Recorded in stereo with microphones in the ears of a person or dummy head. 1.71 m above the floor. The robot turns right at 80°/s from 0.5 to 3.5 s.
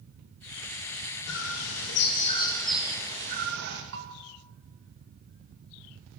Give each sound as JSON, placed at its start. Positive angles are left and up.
{"t": 1.3, "sound": "a bird", "azimuth_deg": 65, "distance_m": 2.5}
{"t": 3.9, "sound": "a bell", "side_deg": -60, "distance_m": 2.5}